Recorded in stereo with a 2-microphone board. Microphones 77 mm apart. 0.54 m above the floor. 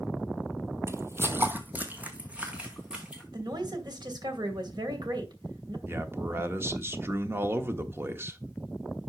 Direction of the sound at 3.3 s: 70° right (ahead or behind).